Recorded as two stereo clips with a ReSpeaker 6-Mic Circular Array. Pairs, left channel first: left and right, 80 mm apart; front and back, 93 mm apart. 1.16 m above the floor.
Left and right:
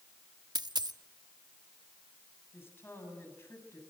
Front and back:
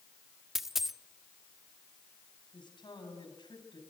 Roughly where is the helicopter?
No helicopter in this recording.